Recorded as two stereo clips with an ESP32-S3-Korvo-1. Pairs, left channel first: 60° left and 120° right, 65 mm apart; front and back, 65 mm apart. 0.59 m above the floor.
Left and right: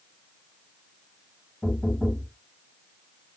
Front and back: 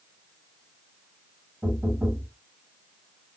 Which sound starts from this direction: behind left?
Knocking, at 1.6 s.